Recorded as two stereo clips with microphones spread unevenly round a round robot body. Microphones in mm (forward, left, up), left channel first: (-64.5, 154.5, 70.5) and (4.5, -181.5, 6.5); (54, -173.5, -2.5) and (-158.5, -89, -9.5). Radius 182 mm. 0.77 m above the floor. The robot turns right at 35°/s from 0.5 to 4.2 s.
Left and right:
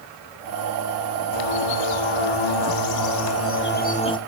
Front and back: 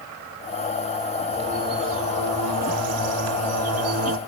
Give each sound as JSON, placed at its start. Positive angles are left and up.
{"t": 1.3, "sound": "a bird", "azimuth_deg": 80, "distance_m": 1.4}